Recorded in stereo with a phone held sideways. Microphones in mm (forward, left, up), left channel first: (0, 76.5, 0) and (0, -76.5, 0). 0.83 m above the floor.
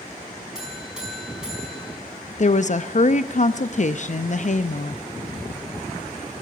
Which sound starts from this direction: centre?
A buzzer, at 0.6 s.